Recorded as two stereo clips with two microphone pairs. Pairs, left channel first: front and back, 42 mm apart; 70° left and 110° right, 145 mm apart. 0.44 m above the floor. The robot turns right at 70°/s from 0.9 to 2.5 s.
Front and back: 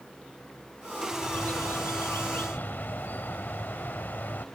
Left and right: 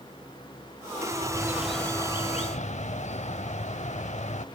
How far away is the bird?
About 0.6 m.